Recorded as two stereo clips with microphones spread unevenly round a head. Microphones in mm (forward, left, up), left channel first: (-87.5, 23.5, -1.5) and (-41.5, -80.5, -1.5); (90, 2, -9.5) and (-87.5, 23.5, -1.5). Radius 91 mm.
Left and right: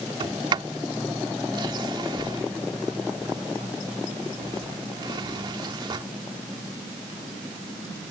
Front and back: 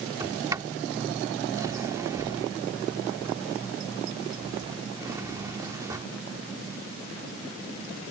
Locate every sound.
0.2 s a sliding door: 115° right